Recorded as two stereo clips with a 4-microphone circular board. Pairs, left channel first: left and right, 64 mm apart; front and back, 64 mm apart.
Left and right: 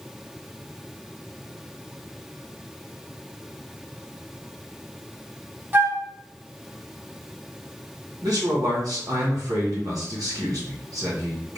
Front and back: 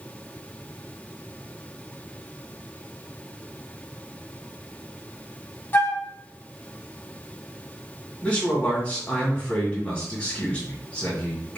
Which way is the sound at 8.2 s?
70° right.